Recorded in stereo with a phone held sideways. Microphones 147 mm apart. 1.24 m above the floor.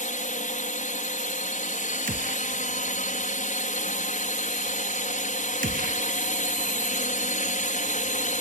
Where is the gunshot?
70° right (ahead or behind).